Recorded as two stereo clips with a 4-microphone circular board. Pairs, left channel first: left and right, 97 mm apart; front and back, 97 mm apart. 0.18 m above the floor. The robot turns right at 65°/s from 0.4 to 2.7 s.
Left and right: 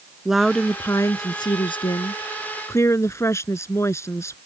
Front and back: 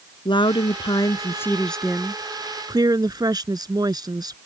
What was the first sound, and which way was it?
A woman speaking, 5° right.